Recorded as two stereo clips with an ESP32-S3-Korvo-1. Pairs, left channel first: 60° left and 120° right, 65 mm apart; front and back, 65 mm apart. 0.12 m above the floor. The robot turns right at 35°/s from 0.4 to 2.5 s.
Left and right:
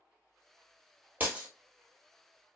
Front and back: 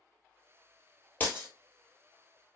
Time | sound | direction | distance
1.2 | breaking glass | 60° right | 1.4 m